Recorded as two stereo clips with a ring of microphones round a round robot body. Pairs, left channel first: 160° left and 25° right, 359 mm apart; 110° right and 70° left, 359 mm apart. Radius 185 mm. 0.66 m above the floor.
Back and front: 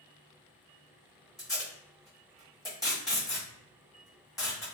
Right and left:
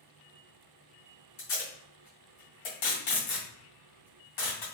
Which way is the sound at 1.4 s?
120° right.